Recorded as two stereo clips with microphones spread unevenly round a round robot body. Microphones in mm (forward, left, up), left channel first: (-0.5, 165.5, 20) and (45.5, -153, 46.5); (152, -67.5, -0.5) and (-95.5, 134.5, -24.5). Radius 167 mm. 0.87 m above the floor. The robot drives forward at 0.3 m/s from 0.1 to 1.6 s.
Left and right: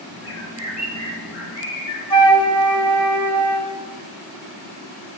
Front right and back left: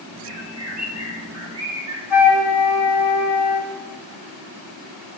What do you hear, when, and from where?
0.2 s a bird: 140° left, 1.3 m; by 2.0 s 150° left, 1.7 m
2.1 s a flute: 90° left, 0.7 m